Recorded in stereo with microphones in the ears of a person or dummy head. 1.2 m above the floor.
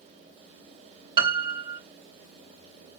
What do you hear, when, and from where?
1.2 s a piano: 25° right (ahead or behind), 1.1 m